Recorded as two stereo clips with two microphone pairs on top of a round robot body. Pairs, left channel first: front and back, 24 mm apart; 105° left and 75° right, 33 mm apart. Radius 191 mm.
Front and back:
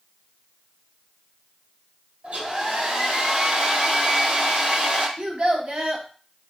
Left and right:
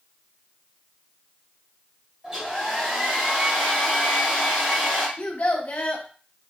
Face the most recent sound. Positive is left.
turn(degrees=140)